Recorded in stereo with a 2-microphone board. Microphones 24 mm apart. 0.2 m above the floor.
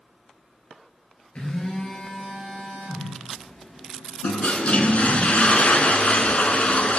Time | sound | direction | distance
1.4 | a phone buzzing | 50° left (ahead or behind) | 2.5 m
4.2 | a toilet flushing | 65° left (ahead or behind) | 0.7 m